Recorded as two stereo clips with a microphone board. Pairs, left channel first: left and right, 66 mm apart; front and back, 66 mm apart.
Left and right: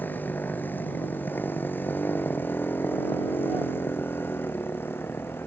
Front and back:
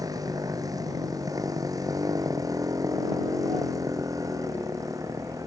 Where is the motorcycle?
150° left; by 5.5 s 145° left.